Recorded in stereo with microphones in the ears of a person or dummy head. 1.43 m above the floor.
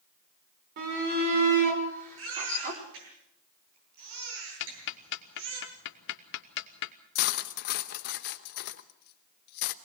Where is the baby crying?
75° right (ahead or behind), 8.5 m.